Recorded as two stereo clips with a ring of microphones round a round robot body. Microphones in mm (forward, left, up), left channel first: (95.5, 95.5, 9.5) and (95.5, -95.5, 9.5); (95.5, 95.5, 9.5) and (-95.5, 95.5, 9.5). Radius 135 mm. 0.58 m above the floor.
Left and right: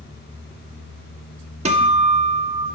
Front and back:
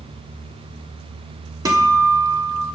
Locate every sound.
1.6 s a guitar: 120° right, 1.3 m